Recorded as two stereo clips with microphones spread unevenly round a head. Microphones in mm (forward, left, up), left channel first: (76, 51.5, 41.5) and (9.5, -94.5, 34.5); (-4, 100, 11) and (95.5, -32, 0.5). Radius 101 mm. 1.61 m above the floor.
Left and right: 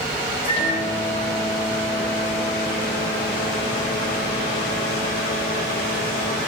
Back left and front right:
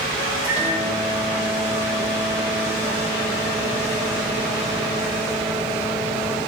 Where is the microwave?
25° left, 8 m.